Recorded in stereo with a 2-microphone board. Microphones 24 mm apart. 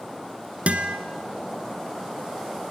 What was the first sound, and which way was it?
A guitar, 65° right (ahead or behind).